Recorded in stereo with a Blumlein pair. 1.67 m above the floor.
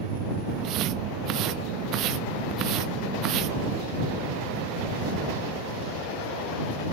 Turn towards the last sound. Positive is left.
turn(degrees=-35)